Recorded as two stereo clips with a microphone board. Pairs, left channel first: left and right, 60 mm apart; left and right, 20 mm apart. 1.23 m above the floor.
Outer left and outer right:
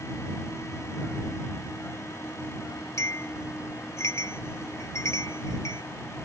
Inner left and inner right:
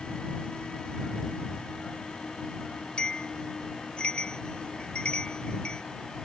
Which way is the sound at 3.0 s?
50° left (ahead or behind).